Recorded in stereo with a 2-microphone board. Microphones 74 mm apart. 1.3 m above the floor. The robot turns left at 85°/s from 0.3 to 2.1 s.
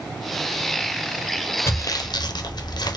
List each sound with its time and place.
1.7 s sawing: 35° left (ahead or behind), 0.6 m; by 3.0 s 65° left (ahead or behind), 0.6 m